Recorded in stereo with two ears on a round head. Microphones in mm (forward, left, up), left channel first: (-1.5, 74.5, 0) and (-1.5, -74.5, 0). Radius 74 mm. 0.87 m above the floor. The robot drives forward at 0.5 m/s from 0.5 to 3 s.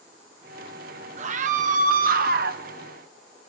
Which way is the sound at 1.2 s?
45° right (ahead or behind).